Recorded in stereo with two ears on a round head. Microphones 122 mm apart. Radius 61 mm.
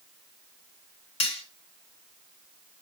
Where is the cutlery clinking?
45° left (ahead or behind), 3.5 m.